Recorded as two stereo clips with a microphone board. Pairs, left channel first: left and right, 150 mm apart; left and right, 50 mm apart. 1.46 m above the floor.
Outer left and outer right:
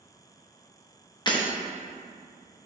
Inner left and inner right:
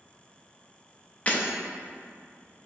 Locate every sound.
1.3 s breaking glass: 30° left (ahead or behind), 1.0 m